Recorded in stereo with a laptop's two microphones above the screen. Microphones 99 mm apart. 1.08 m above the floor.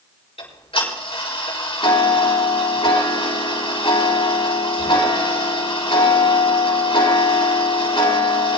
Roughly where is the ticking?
Left.